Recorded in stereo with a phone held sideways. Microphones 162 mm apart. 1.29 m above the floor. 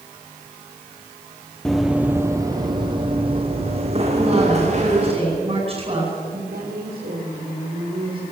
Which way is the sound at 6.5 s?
75° right (ahead or behind).